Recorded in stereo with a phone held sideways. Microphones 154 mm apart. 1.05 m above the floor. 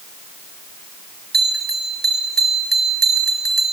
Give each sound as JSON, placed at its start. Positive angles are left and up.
{"t": 1.3, "sound": "a bell", "side_deg": -85, "distance_m": 1.7}